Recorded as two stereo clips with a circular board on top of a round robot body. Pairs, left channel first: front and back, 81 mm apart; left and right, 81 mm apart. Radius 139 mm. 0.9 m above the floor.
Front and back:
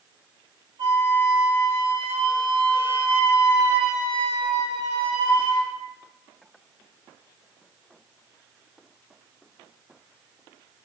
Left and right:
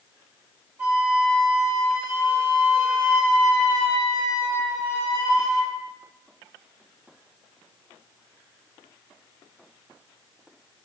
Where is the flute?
165° right, 1.7 m.